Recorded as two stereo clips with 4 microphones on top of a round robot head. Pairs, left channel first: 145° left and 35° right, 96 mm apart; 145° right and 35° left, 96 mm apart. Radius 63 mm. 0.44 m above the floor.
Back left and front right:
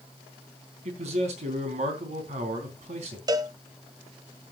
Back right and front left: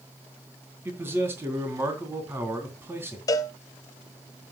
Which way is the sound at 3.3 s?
90° right.